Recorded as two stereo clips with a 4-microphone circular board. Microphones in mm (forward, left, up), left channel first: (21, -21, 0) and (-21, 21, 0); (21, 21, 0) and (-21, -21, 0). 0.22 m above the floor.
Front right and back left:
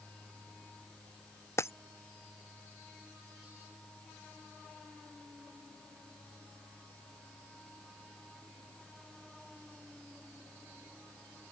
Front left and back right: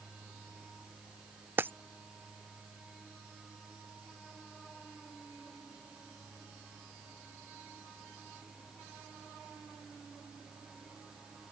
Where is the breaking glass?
85° right.